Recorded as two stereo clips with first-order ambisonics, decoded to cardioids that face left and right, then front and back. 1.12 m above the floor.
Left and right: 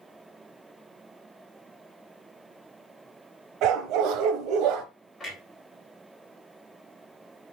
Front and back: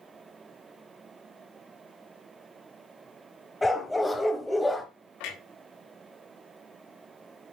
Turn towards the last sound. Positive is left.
turn(degrees=5)